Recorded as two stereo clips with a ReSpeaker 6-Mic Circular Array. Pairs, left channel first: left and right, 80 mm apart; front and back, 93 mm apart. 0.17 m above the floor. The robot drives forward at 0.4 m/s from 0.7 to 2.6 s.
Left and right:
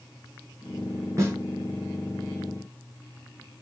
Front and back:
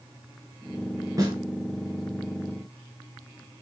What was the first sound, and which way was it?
A snare drum, 135° right.